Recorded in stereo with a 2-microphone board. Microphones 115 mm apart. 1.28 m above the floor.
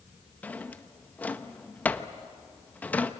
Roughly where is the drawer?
Centre.